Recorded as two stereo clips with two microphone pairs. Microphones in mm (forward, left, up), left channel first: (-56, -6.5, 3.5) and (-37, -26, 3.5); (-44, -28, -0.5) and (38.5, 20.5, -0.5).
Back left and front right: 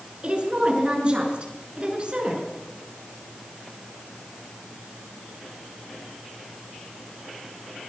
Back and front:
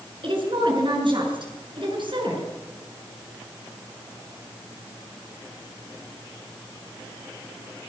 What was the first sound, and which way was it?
A woman speaking, straight ahead.